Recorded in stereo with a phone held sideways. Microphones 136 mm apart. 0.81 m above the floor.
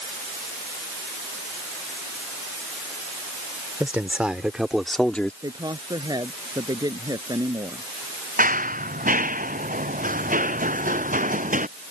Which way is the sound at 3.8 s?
10° right (ahead or behind).